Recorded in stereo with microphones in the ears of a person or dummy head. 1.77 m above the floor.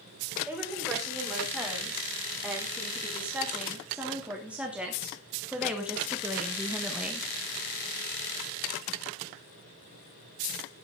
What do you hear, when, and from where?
0.5 s a woman speaking: 5° right (ahead or behind), 5.5 m; by 7.3 s 10° right (ahead or behind), 1.7 m